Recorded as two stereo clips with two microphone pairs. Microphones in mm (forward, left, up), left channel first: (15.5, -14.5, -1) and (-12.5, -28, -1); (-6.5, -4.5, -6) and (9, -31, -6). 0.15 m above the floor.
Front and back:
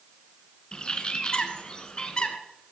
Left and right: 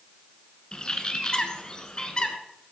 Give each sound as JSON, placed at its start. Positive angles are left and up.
{"t": 0.7, "sound": "a bird", "azimuth_deg": 70, "distance_m": 1.8}